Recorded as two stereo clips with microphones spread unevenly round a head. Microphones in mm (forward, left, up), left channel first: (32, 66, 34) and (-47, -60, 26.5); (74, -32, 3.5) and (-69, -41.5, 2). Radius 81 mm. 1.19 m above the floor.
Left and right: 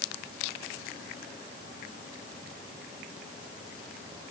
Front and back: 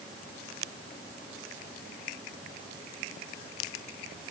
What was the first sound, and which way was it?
Only background noise.